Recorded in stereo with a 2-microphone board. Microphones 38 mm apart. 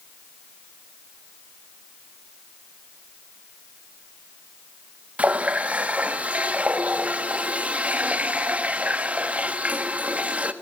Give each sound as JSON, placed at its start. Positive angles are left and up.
{"t": 5.2, "sound": "a running tap", "side_deg": -35, "distance_m": 1.4}